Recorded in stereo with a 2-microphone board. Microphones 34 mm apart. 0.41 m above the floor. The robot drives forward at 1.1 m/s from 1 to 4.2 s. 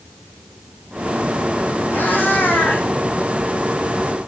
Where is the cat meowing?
70° left (ahead or behind), 5.5 m; by 2.9 s 85° left, 5 m.